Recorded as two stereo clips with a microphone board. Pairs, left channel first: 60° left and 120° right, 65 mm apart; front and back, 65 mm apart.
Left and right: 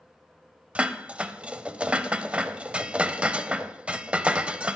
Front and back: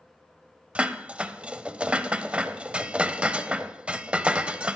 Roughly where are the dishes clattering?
Behind right.